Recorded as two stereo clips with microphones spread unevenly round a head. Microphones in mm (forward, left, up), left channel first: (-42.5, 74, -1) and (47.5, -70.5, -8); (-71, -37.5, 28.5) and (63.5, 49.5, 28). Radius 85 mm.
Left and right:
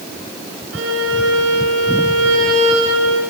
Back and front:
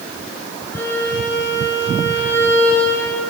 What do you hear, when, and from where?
0.7 s a violin: 70° right, 7.5 m